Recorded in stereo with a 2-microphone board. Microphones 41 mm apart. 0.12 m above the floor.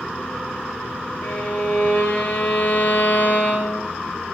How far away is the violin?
About 2.5 m.